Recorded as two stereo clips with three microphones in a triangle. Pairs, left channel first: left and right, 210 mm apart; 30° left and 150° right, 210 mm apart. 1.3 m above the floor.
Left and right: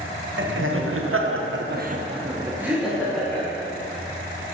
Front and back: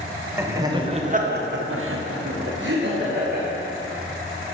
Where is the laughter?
70° right, 1.1 m; by 3.5 s 170° left, 1.4 m.